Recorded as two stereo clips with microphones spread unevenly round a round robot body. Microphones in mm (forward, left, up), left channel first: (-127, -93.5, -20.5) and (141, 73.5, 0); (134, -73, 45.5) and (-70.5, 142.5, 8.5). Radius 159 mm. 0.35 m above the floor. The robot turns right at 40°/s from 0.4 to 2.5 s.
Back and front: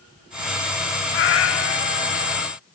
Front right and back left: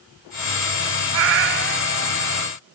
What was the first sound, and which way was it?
A cat meowing, 160° left.